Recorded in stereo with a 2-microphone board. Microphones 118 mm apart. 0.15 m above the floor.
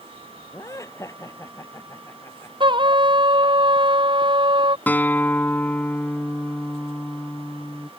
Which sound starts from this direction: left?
Laughter, at 0.5 s.